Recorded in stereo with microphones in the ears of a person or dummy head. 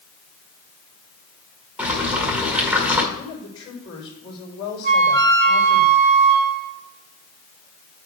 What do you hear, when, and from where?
1.8 s boiling: 5° right (ahead or behind), 1.8 m
3.1 s a woman speaking: 25° left (ahead or behind), 4.5 m
4.8 s a flute: 55° right (ahead or behind), 1.1 m